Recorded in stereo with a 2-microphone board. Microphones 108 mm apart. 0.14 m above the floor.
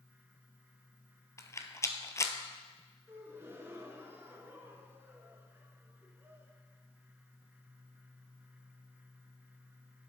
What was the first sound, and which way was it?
A rattle, 30° left (ahead or behind).